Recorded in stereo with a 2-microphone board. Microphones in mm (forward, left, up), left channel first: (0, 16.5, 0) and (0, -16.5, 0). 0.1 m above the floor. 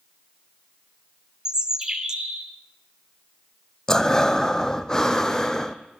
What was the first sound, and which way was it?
A bird, 20° right (ahead or behind).